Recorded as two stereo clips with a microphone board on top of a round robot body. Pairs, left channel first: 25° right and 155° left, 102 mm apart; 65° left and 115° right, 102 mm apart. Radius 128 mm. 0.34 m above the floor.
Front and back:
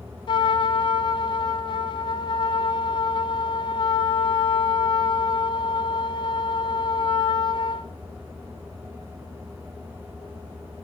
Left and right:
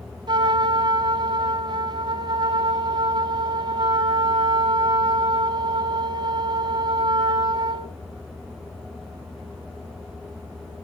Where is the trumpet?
65° right, 1.4 m.